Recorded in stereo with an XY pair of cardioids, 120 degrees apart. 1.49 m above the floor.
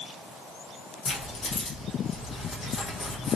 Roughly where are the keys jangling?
Ahead left.